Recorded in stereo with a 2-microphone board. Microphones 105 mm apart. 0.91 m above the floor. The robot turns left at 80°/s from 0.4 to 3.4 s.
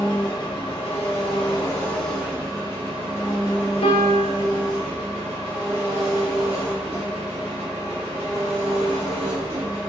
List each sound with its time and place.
0.0 s an engine running: 140° left, 0.9 m; by 9.9 s 100° right, 0.9 m
3.8 s a piano: 65° left (ahead or behind), 0.7 m